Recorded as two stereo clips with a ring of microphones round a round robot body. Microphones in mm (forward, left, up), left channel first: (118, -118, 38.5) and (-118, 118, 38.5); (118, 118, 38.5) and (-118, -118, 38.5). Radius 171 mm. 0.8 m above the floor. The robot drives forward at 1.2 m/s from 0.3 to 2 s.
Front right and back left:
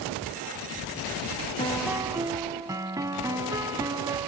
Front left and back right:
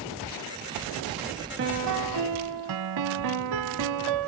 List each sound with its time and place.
1.6 s a piano: 105° right; by 4.3 s 145° right